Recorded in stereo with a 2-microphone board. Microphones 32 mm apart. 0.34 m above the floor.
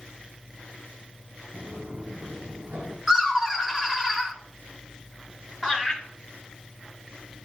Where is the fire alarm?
No fire alarm in this recording.